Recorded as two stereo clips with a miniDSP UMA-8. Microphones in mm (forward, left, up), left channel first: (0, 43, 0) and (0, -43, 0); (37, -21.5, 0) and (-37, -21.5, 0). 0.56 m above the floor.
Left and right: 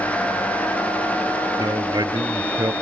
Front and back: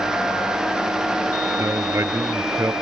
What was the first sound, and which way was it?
A man speaking, 130° right.